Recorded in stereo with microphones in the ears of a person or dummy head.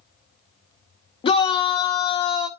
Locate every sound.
1.2 s a shout: 30° left (ahead or behind), 0.8 m